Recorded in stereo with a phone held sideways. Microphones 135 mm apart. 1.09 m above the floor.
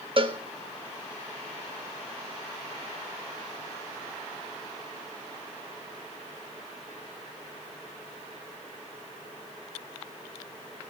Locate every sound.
0.2 s a cowbell: 45° right (ahead or behind), 1.4 m